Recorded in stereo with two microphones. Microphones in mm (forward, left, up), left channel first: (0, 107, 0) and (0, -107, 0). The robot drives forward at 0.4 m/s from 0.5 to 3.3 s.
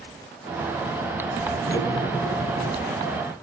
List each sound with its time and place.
1.7 s cutlery clinking: 15° left (ahead or behind), 2 m; by 2.8 s 20° left (ahead or behind), 1.7 m